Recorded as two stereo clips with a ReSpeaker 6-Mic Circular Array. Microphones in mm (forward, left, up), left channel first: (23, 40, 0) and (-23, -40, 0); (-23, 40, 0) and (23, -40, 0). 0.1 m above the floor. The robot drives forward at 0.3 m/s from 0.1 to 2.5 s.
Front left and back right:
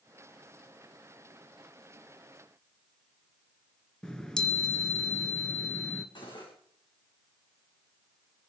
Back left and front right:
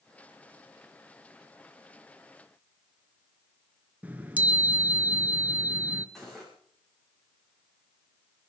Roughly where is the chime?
Ahead.